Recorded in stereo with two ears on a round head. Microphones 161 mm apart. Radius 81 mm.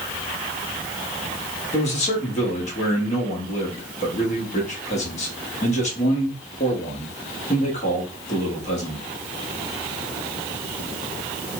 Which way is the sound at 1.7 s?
40° left (ahead or behind).